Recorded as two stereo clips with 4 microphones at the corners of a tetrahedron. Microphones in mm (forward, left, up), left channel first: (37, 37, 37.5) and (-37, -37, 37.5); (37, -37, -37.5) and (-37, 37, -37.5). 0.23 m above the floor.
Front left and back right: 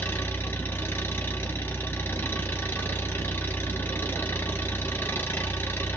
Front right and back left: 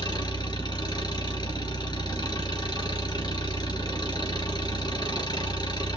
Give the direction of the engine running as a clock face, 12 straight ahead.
1 o'clock.